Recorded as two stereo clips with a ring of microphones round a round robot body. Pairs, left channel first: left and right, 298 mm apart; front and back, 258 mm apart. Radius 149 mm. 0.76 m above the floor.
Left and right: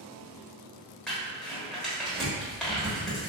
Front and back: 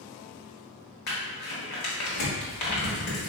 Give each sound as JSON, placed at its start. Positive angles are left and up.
{"t": 1.1, "sound": "crumpling", "azimuth_deg": 0, "distance_m": 1.0}